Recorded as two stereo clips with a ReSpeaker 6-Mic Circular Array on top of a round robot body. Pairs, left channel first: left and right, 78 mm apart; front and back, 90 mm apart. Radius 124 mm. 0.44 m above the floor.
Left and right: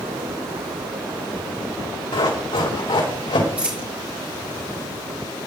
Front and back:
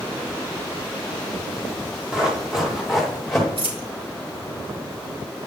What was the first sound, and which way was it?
Running footsteps, 100° left.